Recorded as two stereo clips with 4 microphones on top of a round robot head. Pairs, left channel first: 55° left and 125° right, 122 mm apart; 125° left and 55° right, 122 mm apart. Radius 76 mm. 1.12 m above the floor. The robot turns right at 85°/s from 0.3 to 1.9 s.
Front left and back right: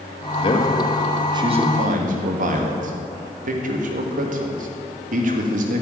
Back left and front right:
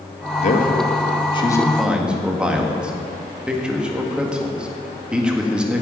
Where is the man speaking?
95° left, 2.0 m; by 5.8 s 135° right, 2.0 m.